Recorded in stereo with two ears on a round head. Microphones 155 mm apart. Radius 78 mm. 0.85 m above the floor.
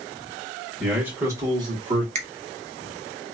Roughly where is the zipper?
I don't hear a zipper.